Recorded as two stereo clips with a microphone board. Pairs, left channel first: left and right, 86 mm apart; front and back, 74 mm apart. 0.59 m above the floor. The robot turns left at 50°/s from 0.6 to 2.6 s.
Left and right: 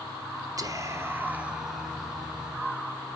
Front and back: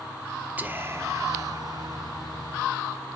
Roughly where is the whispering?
Behind right.